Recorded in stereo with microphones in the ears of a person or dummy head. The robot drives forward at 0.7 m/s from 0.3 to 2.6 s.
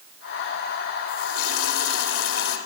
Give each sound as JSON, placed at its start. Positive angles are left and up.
{"t": 1.1, "sound": "a running tap", "side_deg": 80, "distance_m": 3.5}